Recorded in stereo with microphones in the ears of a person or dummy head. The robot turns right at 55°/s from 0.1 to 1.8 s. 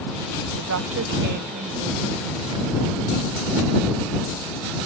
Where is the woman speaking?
95° right; by 2.9 s 25° right.